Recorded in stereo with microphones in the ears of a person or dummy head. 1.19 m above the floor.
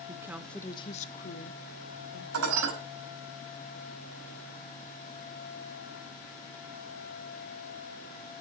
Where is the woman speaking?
20° right (ahead or behind), 0.9 m; by 2.2 s 75° left (ahead or behind), 1.9 m.